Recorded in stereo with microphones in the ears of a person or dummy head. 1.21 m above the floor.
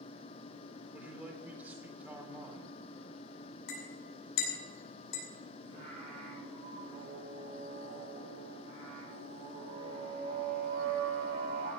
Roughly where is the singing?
Right.